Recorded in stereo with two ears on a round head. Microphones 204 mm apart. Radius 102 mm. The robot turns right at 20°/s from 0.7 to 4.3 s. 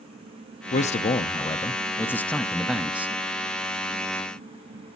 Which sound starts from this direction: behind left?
A man speaking, at 0.7 s.